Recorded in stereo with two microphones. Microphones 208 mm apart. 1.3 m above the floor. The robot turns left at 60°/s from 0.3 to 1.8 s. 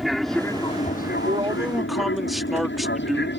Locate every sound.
0.0 s an aircraft: centre (ahead or behind); by 3.4 s 60° left (ahead or behind)
1.2 s a man speaking: 145° right; by 3.3 s straight behind